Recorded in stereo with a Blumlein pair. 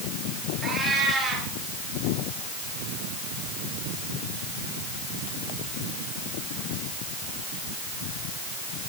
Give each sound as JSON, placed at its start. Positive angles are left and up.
{"t": 0.6, "sound": "a cat meowing", "azimuth_deg": -10, "distance_m": 6.0}